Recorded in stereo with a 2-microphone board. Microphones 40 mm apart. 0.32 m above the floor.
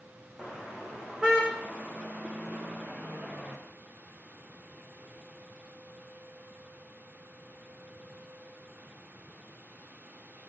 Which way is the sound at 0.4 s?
20° right (ahead or behind).